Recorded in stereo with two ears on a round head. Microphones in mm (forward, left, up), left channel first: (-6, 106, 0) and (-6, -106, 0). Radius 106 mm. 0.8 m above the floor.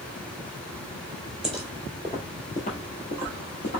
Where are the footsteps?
5° right (ahead or behind), 1.1 m; by 3.8 s 45° left (ahead or behind), 1.3 m.